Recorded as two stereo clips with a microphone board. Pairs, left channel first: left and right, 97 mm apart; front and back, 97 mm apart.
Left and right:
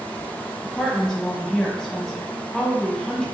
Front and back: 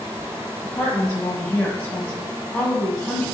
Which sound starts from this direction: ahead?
A woman speaking, at 0.6 s.